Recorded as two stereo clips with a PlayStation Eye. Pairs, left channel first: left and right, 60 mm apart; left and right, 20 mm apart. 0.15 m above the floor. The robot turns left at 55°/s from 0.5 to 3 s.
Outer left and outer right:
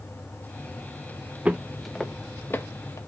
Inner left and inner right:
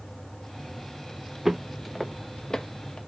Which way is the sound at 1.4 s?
20° right (ahead or behind).